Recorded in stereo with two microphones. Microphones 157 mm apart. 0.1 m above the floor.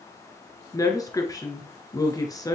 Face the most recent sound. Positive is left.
turn(degrees=20)  # may be behind; listen again after turning